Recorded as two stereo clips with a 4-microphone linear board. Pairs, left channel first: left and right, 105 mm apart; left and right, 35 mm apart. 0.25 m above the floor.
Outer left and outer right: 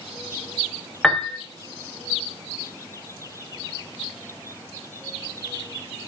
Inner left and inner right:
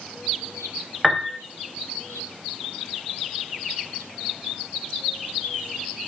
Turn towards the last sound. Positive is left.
turn(degrees=5)  # may be behind; listen again after turning